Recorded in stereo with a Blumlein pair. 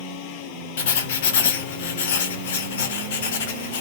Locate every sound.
0.8 s writing: 55° left, 0.6 m